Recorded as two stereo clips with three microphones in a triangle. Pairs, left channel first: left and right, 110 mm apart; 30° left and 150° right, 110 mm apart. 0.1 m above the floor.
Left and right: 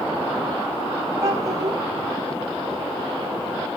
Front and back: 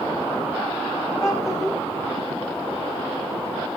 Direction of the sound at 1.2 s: 30° right.